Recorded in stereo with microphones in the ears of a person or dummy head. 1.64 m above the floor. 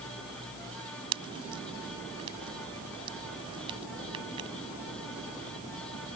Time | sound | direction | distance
1.1 | a pop | 30° right (ahead or behind) | ?